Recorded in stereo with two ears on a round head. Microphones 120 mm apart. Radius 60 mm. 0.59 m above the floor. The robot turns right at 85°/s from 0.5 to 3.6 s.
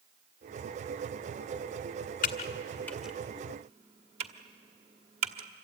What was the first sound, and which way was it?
Typing on a keyboard, 65° left (ahead or behind).